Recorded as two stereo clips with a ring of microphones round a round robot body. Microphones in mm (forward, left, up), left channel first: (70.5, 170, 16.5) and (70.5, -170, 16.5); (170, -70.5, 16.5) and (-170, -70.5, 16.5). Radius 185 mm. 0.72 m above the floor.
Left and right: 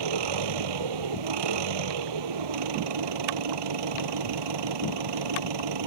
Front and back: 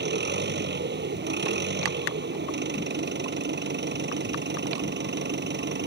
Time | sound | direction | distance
0.0 | an engine running | 120° right | ?